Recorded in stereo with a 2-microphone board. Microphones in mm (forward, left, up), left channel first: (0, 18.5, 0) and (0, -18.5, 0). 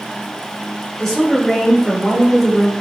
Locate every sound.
1.0 s a woman speaking: 15° left (ahead or behind), 0.8 m